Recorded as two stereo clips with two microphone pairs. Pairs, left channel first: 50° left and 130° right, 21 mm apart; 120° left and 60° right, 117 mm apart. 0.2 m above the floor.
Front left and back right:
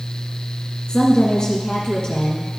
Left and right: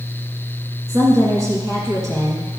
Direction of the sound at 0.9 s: 5° right.